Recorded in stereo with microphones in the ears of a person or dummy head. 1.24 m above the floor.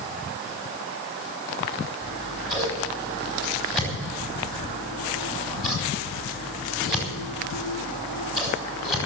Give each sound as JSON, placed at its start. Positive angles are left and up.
{"t": 2.0, "sound": "scissors", "side_deg": 0, "distance_m": 4.5}